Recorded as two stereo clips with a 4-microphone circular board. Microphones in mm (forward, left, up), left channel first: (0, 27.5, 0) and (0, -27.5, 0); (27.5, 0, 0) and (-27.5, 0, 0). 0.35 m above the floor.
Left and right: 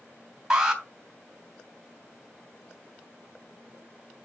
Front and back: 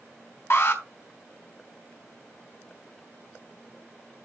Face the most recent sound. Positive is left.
turn(degrees=-10)